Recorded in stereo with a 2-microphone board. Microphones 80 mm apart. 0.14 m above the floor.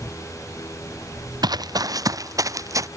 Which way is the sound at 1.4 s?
60° right (ahead or behind).